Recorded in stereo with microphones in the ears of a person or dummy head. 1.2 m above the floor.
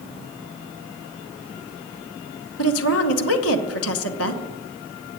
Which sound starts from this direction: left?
A woman speaking, at 2.6 s.